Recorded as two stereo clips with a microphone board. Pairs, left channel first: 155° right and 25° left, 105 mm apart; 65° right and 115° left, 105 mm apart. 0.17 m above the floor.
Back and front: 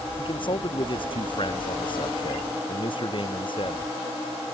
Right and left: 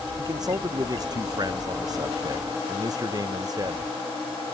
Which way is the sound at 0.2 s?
165° left.